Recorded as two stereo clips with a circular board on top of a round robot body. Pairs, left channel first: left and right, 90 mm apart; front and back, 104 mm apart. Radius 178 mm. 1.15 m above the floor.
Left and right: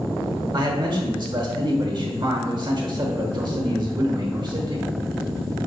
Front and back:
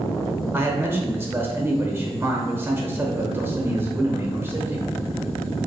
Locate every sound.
0.5 s a man speaking: 115° right, 1.1 m